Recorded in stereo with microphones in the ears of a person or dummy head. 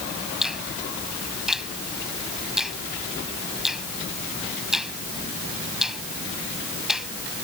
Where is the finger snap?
5° right (ahead or behind).